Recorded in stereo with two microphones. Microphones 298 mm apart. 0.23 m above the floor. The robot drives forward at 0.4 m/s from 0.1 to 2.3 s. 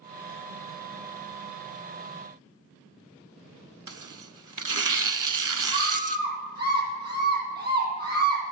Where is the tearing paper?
80° right, 0.7 m.